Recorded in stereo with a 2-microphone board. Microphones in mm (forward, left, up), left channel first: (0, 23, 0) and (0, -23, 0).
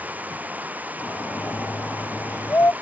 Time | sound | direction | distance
0.0 | running water | 35° right (ahead or behind) | ?
1.0 | a shout | 60° left (ahead or behind) | ?